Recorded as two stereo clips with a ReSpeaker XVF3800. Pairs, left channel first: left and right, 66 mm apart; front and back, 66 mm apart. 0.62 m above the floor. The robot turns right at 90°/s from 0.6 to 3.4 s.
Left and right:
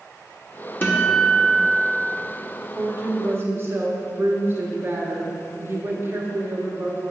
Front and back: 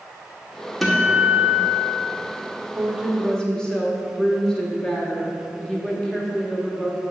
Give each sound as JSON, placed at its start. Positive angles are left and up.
{"t": 0.8, "sound": "a guitar", "azimuth_deg": 90, "distance_m": 1.1}
{"t": 2.8, "sound": "a woman speaking", "azimuth_deg": -130, "distance_m": 1.1}